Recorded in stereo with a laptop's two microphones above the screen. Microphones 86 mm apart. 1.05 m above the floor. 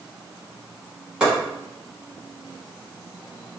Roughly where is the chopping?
Centre.